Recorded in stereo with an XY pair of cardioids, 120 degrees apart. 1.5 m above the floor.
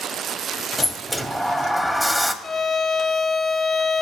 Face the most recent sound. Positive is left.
turn(degrees=35)